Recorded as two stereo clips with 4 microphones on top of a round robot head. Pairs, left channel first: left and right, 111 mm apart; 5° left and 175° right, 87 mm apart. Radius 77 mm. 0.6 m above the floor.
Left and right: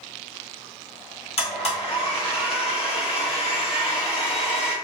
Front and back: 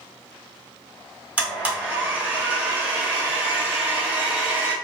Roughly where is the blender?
Behind left.